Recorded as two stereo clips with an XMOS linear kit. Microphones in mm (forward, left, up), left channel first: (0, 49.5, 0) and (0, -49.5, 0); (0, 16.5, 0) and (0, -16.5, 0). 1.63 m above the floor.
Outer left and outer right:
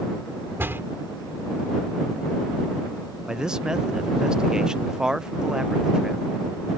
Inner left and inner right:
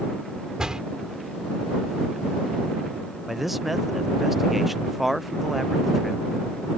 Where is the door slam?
20° right (ahead or behind).